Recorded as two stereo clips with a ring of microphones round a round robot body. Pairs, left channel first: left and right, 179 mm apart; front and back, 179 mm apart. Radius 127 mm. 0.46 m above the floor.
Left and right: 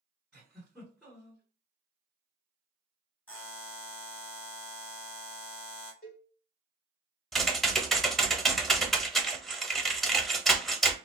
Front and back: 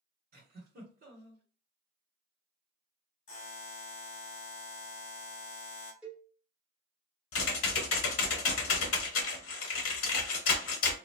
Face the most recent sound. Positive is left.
turn(degrees=0)